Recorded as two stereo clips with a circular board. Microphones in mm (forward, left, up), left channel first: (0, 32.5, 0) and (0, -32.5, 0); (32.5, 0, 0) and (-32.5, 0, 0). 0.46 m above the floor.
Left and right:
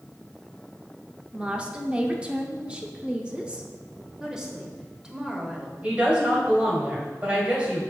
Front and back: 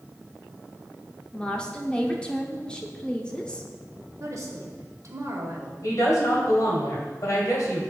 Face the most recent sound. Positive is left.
turn(degrees=-20)